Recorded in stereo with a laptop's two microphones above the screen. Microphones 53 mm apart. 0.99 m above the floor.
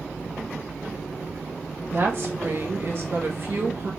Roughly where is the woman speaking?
Right.